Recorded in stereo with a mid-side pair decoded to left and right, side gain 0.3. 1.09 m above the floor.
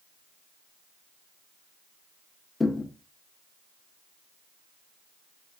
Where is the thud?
30° left, 1.4 m.